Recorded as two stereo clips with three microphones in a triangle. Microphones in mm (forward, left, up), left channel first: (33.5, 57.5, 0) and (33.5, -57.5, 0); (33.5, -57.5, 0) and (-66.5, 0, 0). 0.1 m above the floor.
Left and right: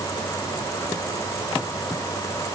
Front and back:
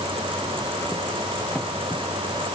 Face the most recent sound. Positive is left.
No sound to turn to.